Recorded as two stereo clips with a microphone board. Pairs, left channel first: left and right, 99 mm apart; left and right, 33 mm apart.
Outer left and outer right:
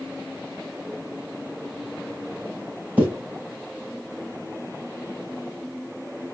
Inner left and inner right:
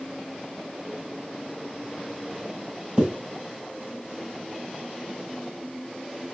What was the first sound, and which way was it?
A zipper, 15° right (ahead or behind).